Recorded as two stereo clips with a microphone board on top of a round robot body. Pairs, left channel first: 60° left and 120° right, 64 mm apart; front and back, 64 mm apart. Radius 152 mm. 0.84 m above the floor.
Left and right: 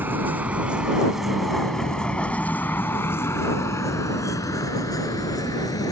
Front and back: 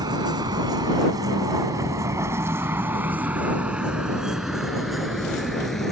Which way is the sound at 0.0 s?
Straight behind.